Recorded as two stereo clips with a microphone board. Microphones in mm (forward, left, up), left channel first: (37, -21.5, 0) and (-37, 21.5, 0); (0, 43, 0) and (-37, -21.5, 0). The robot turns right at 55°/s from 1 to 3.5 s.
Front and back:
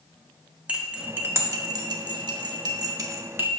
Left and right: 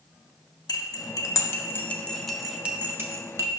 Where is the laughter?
No laughter in this recording.